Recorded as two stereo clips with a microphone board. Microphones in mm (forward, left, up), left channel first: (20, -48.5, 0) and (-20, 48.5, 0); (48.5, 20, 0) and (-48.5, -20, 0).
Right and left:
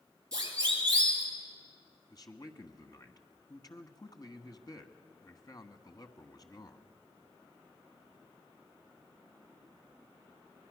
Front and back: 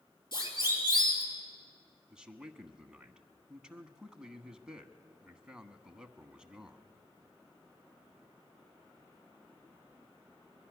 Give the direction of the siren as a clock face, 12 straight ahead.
10 o'clock.